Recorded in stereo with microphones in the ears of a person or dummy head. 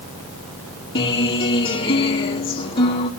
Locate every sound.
0.9 s a guitar: 25° left (ahead or behind), 3 m